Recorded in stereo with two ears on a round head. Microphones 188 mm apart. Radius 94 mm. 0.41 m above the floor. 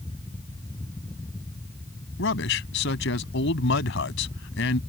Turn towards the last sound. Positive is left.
turn(degrees=70)  # may be behind; listen again after turning